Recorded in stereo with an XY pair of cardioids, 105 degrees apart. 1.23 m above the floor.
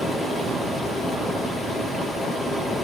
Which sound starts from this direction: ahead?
Running water, at 0.0 s.